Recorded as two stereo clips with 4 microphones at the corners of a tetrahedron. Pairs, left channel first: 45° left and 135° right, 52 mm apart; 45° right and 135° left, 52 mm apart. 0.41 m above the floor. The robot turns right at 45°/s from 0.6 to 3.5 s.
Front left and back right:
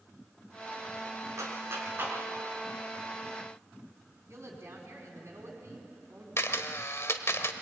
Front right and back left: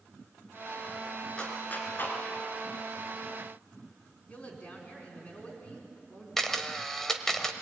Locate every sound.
1.4 s a clap: 120° right, 4 m; by 2.2 s 80° right, 4 m
4.3 s a woman speaking: 105° right, 4.5 m
6.4 s a camera shutter: 35° left, 1.2 m